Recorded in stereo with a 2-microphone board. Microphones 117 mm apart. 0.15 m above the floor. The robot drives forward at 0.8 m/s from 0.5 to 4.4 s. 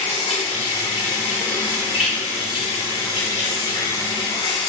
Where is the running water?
70° left (ahead or behind), 3 m; by 4.7 s 40° left (ahead or behind), 4.5 m.